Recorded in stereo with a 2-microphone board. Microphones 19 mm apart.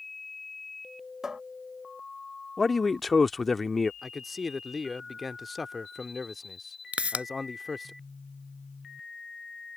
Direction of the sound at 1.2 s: 30° right (ahead or behind).